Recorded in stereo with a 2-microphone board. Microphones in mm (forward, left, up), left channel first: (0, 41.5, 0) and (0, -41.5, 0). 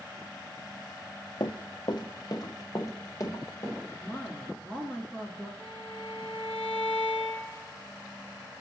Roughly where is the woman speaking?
Centre.